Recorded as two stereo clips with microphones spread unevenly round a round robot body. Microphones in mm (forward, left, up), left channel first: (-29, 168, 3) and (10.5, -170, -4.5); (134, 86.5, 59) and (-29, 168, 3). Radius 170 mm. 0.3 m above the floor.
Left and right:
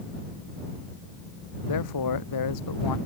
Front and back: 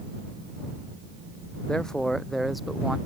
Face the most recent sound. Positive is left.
turn(degrees=65)